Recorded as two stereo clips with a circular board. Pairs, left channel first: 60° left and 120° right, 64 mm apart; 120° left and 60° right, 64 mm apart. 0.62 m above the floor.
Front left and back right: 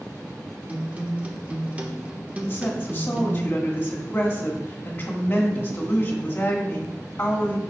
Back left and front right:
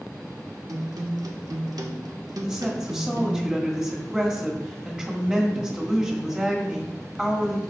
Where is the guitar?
55° right, 0.8 m.